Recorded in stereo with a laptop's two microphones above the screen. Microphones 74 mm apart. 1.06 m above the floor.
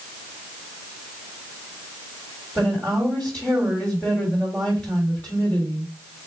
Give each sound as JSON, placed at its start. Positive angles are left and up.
{"t": 2.5, "sound": "a woman speaking", "side_deg": 20, "distance_m": 1.7}